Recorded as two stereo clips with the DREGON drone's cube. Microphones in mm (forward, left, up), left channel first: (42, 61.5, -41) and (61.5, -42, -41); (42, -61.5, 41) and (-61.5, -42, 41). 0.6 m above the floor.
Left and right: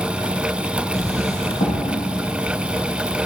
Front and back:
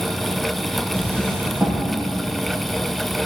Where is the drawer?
95° left, 5 m.